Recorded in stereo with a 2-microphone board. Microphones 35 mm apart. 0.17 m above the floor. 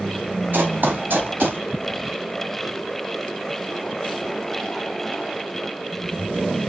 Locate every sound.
0.5 s running footsteps: 80° right, 3.5 m; by 1.6 s 90° right, 4 m